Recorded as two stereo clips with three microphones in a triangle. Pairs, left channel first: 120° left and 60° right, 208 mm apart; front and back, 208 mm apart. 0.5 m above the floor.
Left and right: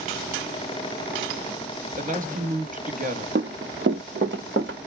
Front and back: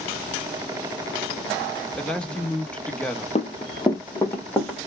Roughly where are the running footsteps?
Ahead right.